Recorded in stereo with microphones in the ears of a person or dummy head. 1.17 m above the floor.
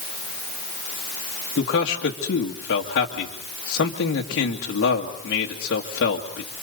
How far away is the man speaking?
About 2 m.